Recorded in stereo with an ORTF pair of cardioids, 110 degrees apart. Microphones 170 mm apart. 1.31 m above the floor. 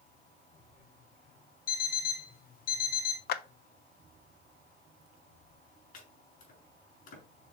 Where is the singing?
No singing in this recording.